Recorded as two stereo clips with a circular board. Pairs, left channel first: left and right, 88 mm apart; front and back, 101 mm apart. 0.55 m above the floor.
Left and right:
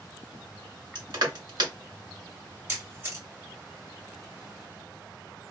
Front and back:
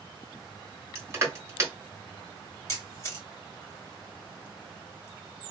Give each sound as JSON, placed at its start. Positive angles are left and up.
{"t": 0.9, "sound": "crushing", "azimuth_deg": -115, "distance_m": 1.0}
{"t": 2.7, "sound": "a camera shutter", "azimuth_deg": -40, "distance_m": 1.4}